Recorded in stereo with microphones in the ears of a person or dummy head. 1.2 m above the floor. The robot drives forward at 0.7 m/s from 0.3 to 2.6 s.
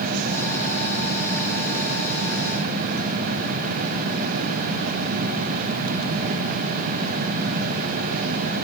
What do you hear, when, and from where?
Only background noise.